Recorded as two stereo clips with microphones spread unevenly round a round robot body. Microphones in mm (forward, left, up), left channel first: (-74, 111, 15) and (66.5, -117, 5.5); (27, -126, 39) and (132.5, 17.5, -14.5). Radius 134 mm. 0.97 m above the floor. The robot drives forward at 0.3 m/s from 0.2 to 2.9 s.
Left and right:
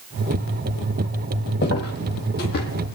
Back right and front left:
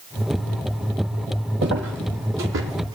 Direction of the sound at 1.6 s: 85° left.